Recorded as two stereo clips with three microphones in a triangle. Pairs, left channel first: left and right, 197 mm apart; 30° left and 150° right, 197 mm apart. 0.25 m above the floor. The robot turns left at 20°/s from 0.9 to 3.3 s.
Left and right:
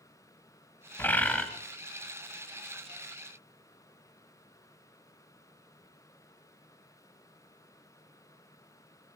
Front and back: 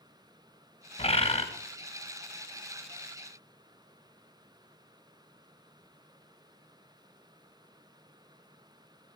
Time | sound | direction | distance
1.0 | a bird | 20° left | 1.7 m